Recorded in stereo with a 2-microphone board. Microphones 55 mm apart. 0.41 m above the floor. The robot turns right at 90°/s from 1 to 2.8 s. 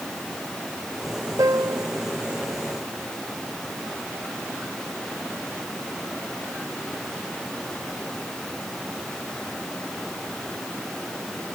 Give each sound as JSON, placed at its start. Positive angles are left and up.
{"t": 1.4, "sound": "a piano", "azimuth_deg": -90}